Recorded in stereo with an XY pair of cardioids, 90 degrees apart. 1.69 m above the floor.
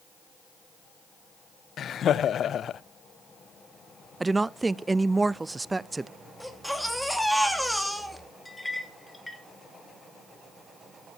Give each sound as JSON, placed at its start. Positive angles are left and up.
{"t": 1.8, "sound": "laughter", "azimuth_deg": 65, "distance_m": 0.5}
{"t": 4.2, "sound": "a woman speaking", "azimuth_deg": -20, "distance_m": 0.5}
{"t": 6.4, "sound": "a baby crying", "azimuth_deg": 0, "distance_m": 2.5}
{"t": 8.4, "sound": "a clink", "azimuth_deg": 10, "distance_m": 2.5}